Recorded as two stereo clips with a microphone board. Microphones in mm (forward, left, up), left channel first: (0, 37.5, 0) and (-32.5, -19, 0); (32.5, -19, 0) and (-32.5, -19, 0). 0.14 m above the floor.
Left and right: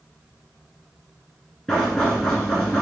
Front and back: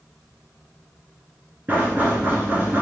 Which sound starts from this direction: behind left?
Knocking, at 1.7 s.